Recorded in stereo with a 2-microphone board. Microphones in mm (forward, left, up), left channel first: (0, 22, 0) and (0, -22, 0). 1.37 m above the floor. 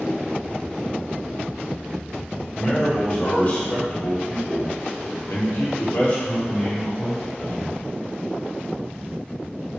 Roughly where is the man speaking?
Left.